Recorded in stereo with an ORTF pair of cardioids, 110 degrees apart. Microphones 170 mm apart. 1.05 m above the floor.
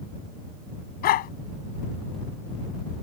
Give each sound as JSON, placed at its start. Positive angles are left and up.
{"t": 1.0, "sound": "a dog barking", "azimuth_deg": 65}